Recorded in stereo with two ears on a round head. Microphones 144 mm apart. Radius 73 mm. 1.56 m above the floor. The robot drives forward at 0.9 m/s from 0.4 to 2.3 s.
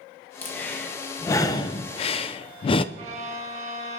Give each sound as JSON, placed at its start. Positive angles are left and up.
{"t": 0.4, "sound": "breathing", "side_deg": 10, "distance_m": 1.6}
{"t": 3.0, "sound": "a violin", "side_deg": -45, "distance_m": 1.4}